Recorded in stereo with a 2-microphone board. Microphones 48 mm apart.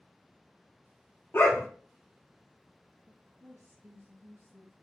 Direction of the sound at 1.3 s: 50° left (ahead or behind).